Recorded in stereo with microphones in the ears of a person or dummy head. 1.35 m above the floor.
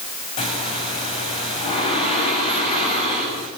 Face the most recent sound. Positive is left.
turn(degrees=30)  # may be behind; listen again after turning